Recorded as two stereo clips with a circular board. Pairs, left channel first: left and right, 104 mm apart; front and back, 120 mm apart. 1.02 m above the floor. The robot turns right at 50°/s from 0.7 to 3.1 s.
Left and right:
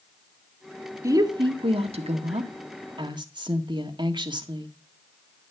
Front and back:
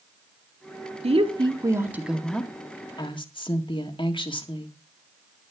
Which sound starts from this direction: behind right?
A woman speaking, at 1.0 s.